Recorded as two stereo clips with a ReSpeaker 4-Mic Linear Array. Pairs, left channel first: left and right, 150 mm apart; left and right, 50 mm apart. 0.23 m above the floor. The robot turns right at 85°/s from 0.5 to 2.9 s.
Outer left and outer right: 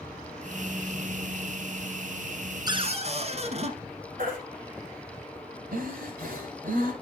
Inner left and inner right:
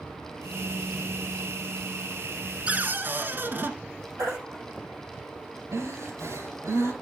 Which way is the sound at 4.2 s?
70° right (ahead or behind).